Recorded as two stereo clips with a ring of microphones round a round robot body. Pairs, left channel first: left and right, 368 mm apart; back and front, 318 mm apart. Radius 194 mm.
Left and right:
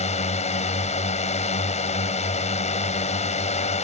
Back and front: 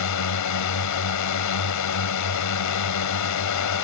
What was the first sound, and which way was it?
A drone, 160° left.